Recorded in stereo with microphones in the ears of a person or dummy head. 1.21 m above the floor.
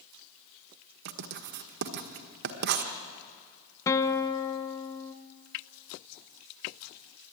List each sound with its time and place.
1.1 s writing: 50° right (ahead or behind), 1.4 m
3.9 s a guitar: 15° left (ahead or behind), 1.2 m